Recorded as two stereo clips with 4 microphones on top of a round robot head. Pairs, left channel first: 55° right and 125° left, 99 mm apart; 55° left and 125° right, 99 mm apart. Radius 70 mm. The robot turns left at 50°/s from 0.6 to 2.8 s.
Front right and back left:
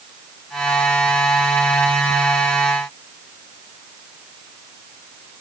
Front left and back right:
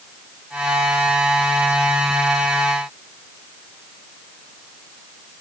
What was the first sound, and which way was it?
Only background noise.